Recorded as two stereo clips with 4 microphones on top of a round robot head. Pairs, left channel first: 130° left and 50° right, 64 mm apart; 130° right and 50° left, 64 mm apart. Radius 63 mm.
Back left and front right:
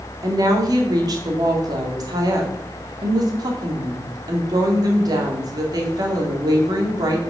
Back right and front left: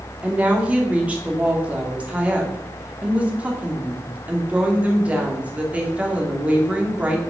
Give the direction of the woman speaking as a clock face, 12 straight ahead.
1 o'clock.